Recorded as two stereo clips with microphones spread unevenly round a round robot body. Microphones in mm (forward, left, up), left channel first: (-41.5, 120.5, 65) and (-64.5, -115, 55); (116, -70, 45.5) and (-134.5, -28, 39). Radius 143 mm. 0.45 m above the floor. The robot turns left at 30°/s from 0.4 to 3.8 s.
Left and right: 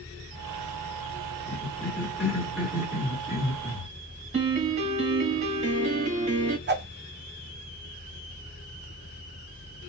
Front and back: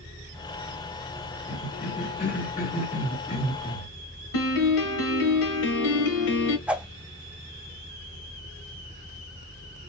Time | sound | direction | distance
1.5 | a cough | 20° left | 1.1 m
4.3 | a piano | 30° right | 1.0 m
6.7 | a whoosh | 105° right | 0.7 m